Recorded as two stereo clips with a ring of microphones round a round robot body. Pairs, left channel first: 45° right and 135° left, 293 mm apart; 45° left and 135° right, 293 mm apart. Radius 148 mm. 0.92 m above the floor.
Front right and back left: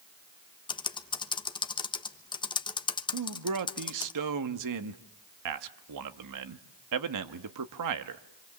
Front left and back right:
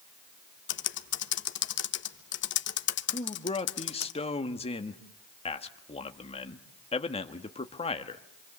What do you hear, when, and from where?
0.7 s typing on a keyboard: 20° left, 1.1 m
3.1 s a man speaking: 115° left, 1.5 m